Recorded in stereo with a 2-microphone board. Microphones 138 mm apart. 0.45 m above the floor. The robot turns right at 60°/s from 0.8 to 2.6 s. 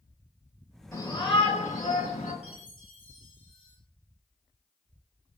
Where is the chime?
50° left (ahead or behind), 5 m; by 3.8 s 40° left (ahead or behind), 5 m.